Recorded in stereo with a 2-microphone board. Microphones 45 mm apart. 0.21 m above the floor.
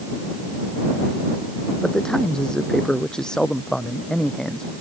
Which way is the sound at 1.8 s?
15° left (ahead or behind).